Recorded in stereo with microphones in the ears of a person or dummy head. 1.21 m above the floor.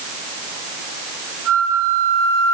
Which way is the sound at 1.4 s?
80° right.